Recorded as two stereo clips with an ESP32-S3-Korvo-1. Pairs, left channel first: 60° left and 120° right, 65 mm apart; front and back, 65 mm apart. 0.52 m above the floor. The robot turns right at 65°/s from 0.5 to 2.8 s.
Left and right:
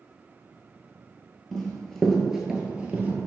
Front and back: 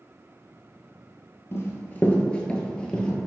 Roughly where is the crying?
No crying in this recording.